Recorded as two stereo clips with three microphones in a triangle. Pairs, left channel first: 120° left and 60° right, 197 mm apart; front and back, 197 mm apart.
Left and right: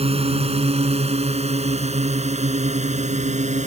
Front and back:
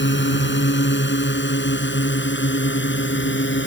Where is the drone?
5° right; by 3.7 s 10° right.